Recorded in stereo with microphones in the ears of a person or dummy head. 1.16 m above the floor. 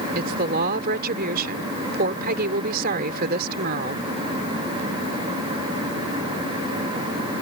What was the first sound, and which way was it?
A woman speaking, 50° right (ahead or behind).